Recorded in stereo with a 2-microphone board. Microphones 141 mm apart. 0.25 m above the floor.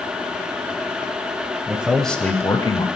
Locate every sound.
1.7 s a man speaking: 15° right (ahead or behind), 0.9 m; by 2.9 s 35° left (ahead or behind), 1.1 m